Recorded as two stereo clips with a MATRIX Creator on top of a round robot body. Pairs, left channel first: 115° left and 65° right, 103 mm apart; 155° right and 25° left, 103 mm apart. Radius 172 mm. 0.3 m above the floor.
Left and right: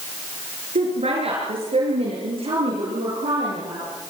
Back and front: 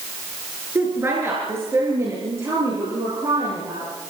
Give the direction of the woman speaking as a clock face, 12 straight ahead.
2 o'clock.